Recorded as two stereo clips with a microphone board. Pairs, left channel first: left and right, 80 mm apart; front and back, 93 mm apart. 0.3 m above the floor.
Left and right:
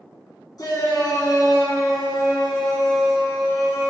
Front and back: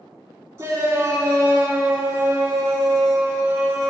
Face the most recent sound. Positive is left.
turn(degrees=120)